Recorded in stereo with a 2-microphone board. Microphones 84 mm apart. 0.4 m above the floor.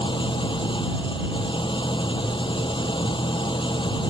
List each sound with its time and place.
0.0 s an engine running: 75° left (ahead or behind)